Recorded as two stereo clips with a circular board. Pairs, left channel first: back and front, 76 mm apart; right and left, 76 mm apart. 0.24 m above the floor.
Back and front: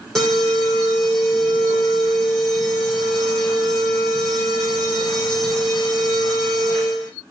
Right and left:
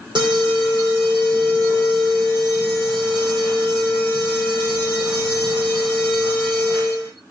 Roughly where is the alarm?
Left.